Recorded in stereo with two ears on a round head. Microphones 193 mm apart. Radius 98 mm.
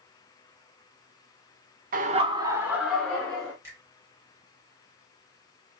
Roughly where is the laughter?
Right.